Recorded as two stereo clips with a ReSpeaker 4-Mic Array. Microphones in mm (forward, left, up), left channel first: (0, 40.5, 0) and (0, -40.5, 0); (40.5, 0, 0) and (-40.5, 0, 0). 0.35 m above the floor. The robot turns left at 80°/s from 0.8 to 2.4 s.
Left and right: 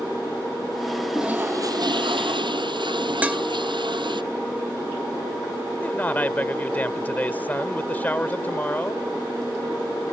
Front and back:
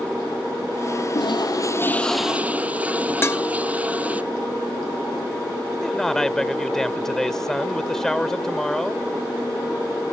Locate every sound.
1.1 s a toilet flushing: 5° right; by 4.2 s 105° right
3.2 s dishes clattering: 30° right
5.8 s a man speaking: 75° left